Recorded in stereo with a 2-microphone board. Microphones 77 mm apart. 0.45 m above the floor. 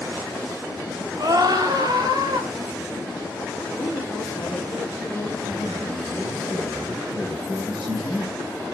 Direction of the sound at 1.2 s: 55° right (ahead or behind).